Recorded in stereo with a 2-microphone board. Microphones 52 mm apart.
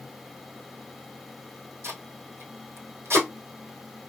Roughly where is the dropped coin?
No dropped coin in this recording.